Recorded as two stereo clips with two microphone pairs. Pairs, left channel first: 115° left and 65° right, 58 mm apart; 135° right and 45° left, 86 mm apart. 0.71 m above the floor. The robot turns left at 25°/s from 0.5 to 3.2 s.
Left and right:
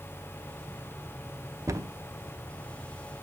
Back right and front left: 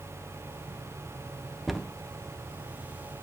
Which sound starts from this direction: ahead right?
A cupboard door, at 1.7 s.